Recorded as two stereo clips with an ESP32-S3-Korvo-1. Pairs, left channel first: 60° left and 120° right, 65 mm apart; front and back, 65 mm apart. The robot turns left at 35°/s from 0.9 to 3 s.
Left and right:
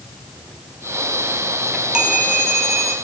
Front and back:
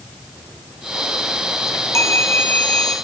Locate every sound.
1.7 s a chime: 35° right, 2.0 m; by 2.9 s 80° right, 2.0 m